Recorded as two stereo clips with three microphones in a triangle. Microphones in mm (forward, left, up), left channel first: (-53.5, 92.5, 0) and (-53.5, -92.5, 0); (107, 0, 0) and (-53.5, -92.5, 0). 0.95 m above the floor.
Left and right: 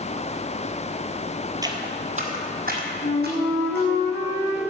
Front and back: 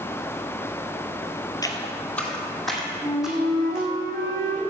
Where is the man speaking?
No man speaking in this recording.